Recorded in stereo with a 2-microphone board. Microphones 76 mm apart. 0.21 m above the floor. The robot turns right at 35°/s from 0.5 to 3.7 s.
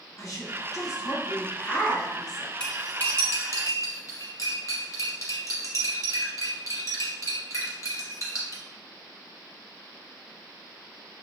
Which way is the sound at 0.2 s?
115° left.